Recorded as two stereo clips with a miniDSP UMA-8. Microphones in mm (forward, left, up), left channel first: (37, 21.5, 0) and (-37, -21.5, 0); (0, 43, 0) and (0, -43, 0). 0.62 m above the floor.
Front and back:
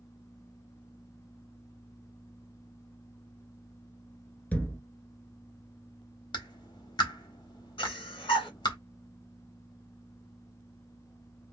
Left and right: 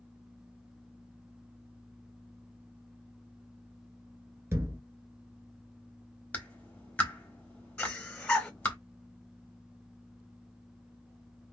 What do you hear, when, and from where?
4.5 s a thud: 40° right, 0.8 m
6.3 s a clap: 20° left, 1.2 m
7.8 s breathing: 10° left, 1.9 m